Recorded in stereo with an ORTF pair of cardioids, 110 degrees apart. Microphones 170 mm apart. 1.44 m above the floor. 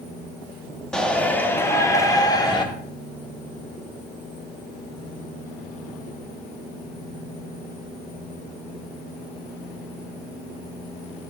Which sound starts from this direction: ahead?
A shout, at 0.9 s.